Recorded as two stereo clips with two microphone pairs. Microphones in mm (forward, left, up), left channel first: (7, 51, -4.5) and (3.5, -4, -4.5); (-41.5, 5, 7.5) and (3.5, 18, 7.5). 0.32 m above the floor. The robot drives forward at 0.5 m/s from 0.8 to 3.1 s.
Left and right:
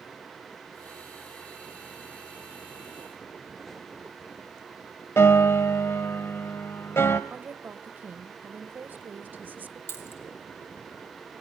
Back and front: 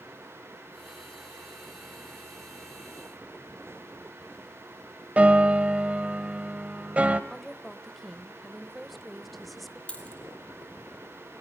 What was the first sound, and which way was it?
A piano, 75° left.